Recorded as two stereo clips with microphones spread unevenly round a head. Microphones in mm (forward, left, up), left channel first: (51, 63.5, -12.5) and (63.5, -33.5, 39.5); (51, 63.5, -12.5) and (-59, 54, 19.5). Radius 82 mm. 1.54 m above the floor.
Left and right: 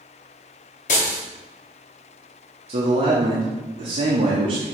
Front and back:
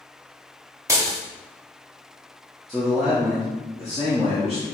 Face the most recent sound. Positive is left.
turn(degrees=-80)